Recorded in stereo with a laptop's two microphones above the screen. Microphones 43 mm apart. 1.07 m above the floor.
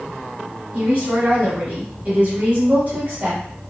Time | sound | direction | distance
0.7 | a woman speaking | 35° right (ahead or behind) | 1.1 m